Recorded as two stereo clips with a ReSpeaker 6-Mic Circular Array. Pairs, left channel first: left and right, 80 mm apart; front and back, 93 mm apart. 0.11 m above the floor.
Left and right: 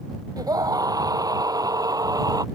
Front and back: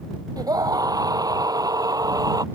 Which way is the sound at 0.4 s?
130° right.